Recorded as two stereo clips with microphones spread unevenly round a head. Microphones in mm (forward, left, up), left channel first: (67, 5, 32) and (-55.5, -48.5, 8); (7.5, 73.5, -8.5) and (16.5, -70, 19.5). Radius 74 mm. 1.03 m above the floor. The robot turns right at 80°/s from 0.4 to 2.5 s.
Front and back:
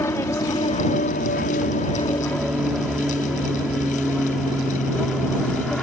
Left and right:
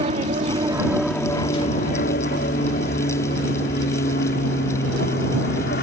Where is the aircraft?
45° right; by 5.8 s 110° left.